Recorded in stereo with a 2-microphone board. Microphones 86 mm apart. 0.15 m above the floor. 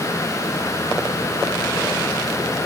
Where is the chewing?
No chewing in this recording.